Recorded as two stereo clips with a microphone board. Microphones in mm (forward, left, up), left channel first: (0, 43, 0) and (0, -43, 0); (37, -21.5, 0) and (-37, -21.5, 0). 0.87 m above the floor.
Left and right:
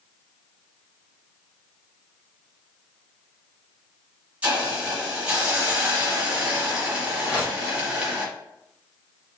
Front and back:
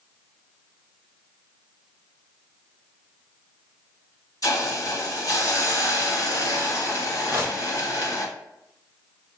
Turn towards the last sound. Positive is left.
turn(degrees=145)